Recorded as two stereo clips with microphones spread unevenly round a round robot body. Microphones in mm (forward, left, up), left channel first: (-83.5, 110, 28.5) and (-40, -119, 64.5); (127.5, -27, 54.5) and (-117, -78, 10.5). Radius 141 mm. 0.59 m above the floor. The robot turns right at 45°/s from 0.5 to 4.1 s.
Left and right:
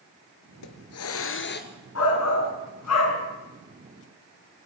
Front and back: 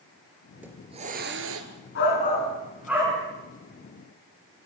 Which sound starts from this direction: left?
A hiss, at 0.5 s.